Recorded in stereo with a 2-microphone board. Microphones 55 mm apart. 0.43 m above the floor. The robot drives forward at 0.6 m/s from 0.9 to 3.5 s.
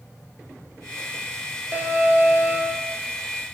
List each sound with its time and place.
1.7 s an alarm: 35° right (ahead or behind), 5.5 m; by 2.9 s 30° right (ahead or behind), 6.5 m